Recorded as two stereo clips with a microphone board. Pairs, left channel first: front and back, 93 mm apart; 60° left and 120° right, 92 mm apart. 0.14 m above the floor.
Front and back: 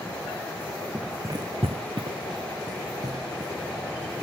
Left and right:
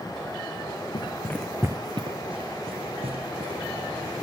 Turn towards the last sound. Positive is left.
turn(degrees=-125)